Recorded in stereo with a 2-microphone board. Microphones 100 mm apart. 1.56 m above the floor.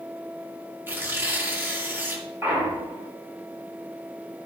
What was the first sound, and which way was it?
Tearing paper, 20° right (ahead or behind).